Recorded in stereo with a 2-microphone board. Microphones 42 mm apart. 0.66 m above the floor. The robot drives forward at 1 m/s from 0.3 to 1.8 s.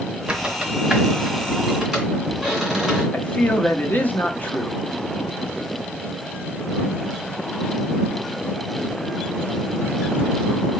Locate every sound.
0.3 s a squeak: 25° right (ahead or behind), 0.8 m; by 3.0 s 10° right (ahead or behind), 2 m
3.1 s a man speaking: 40° left (ahead or behind), 0.7 m